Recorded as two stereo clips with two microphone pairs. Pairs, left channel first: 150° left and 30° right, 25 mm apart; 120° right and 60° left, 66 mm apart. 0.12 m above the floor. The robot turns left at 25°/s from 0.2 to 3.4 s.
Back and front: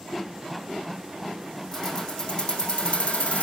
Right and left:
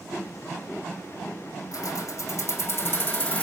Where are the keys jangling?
140° right, 3.5 m; by 3.4 s 175° left, 3.5 m.